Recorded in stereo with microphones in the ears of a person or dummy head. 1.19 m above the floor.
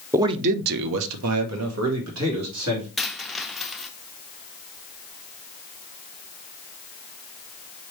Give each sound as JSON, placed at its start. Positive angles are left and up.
{"t": 0.1, "sound": "a man speaking", "side_deg": -10, "distance_m": 0.5}
{"t": 3.0, "sound": "a dropped coin", "side_deg": 0, "distance_m": 0.5}